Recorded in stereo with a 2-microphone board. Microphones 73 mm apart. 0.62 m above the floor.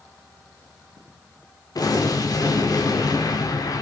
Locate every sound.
1.8 s an explosion: 60° left (ahead or behind), 1.3 m